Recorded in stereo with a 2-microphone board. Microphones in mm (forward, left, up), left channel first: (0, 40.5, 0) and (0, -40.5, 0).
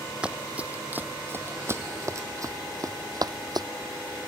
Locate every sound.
0.2 s running footsteps: 10° right (ahead or behind); by 3.7 s 55° right (ahead or behind)